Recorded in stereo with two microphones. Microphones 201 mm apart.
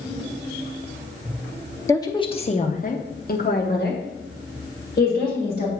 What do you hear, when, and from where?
1.9 s a woman speaking: 15° left (ahead or behind), 0.8 m; by 5.7 s 50° left (ahead or behind), 2 m